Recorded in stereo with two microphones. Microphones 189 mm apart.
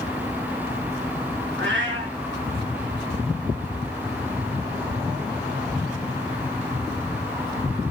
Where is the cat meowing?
90° right, 6 m.